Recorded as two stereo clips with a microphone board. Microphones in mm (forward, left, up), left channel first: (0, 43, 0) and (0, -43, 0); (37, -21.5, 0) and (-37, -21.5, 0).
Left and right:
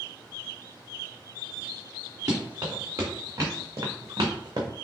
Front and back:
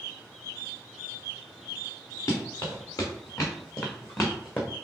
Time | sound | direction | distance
2.3 | running footsteps | 40° right | 2.5 m